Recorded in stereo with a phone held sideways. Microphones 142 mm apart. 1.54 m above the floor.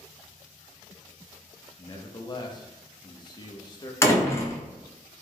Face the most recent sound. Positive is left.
turn(degrees=20)  # may be behind; listen again after turning